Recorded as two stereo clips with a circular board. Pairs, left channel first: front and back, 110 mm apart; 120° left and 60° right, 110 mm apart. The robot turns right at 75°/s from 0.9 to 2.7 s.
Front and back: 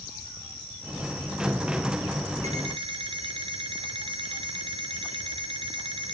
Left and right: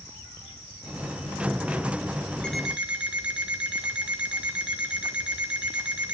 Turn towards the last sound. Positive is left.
turn(degrees=-140)